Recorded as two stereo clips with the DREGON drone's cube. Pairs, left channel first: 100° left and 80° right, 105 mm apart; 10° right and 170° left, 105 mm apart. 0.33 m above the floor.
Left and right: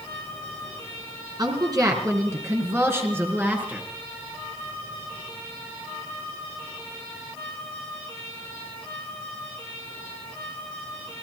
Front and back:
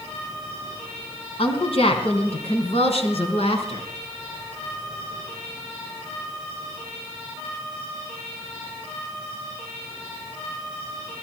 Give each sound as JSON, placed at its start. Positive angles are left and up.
{"t": 1.4, "sound": "a woman speaking", "azimuth_deg": -30, "distance_m": 3.5}